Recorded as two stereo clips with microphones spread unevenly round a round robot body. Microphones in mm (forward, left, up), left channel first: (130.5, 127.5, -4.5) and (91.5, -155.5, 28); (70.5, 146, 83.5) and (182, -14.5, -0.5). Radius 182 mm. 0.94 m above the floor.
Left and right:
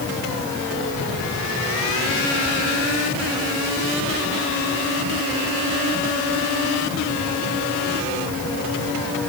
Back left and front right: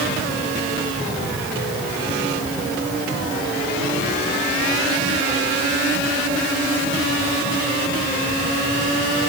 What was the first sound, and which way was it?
Only background noise.